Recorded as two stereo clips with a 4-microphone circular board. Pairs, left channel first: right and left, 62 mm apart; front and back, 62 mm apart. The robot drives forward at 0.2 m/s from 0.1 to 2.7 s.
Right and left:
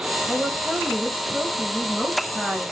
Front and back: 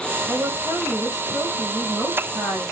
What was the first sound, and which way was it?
A woman speaking, 175° left.